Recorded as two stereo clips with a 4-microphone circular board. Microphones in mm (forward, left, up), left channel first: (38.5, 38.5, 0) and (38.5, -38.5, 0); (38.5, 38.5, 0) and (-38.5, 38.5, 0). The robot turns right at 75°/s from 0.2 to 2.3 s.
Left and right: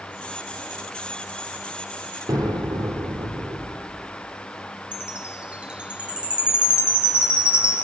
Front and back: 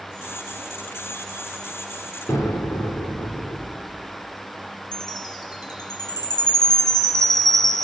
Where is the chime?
15° right, 2 m.